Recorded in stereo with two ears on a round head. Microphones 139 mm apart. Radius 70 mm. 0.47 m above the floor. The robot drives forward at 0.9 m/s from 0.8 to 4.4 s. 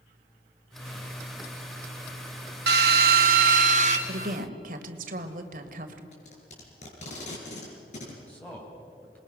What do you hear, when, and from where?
2.7 s a drill: 85° right, 1.6 m; by 4.0 s 50° right (ahead or behind), 2 m
4.1 s a woman speaking: 65° right (ahead or behind), 1.8 m; by 6.0 s 60° right (ahead or behind), 1.8 m
6.1 s tape being pulled: 50° left (ahead or behind), 5.5 m
8.3 s a man speaking: 10° left (ahead or behind), 3.5 m